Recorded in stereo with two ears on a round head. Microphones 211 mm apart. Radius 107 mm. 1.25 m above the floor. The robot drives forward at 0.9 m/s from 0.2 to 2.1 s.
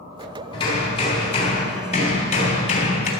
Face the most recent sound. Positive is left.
turn(degrees=30)  # may be behind; listen again after turning